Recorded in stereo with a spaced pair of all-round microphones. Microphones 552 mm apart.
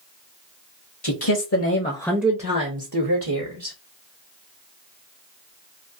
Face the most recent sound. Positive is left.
turn(degrees=-60)  # may be behind; listen again after turning